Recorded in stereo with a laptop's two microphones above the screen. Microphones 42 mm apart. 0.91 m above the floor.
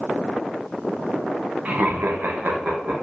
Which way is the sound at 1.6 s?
40° right (ahead or behind).